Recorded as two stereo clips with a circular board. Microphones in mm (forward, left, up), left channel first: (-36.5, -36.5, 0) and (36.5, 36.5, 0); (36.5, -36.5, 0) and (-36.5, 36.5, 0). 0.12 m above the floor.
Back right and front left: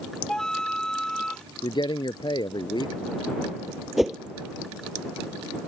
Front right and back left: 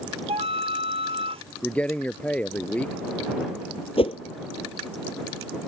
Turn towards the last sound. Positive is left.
turn(degrees=-40)